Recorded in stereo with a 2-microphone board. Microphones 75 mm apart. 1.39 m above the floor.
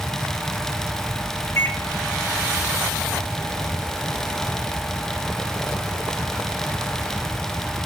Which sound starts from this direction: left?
A microwave, at 1.6 s.